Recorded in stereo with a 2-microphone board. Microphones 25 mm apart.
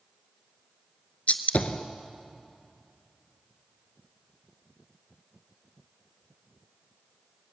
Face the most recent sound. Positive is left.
turn(degrees=65)  # may be behind; listen again after turning